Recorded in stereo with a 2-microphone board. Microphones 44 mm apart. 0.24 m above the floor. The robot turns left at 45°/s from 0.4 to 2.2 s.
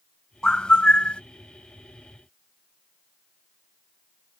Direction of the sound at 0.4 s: 135° left.